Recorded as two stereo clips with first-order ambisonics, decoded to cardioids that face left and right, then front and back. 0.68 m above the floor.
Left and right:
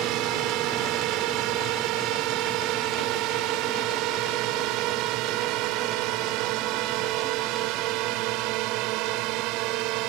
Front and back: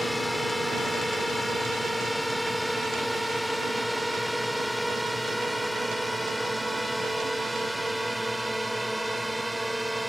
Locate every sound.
0.0 s a drone: 90° right; by 10.1 s 95° right